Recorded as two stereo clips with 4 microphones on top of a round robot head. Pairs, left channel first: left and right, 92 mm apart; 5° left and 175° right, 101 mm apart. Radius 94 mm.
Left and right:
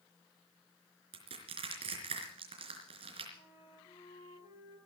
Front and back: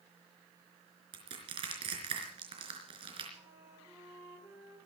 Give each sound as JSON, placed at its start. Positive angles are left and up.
{"t": 1.1, "sound": "crushing", "azimuth_deg": -125, "distance_m": 4.0}
{"t": 3.3, "sound": "a flute", "azimuth_deg": 120, "distance_m": 10.0}